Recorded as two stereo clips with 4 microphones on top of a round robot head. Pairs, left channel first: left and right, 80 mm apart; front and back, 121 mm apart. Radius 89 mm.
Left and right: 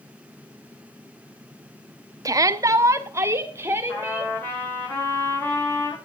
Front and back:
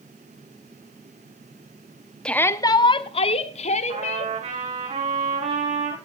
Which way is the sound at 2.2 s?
80° right.